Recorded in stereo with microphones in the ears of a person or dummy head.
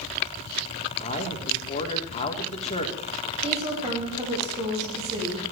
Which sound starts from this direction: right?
A woman speaking, at 3.4 s.